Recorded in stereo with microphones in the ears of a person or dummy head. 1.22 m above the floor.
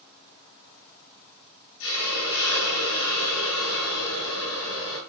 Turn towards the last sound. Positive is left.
turn(degrees=80)